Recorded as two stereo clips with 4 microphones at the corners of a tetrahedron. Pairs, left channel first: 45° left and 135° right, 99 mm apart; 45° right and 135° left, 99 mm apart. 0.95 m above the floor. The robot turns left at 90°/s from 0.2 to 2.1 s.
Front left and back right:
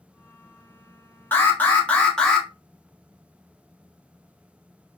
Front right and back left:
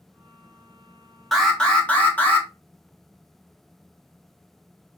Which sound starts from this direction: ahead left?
An alarm, at 1.3 s.